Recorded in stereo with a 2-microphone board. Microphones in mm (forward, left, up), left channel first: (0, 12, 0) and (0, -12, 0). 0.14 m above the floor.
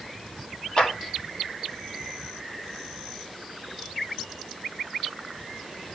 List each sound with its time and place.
0.8 s a clap: 45° left (ahead or behind), 5 m